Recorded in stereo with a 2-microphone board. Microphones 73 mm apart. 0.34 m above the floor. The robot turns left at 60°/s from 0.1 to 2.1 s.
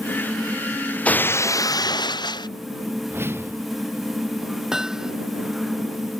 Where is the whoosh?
30° right (ahead or behind).